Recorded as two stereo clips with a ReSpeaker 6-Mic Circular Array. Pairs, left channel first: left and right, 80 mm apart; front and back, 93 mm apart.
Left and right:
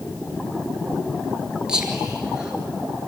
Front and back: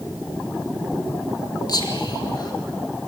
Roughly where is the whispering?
Ahead.